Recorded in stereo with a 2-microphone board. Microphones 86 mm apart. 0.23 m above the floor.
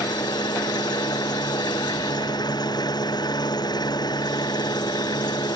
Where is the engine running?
55° left (ahead or behind).